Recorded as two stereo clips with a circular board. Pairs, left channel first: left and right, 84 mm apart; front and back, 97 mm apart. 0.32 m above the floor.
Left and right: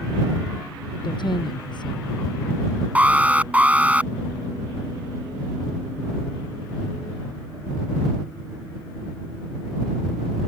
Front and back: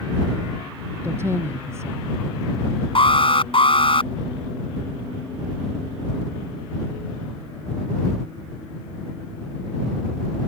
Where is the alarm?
20° right.